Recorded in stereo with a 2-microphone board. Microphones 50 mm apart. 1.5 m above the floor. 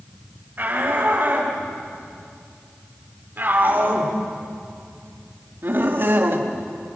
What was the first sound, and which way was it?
A shout, 40° right (ahead or behind).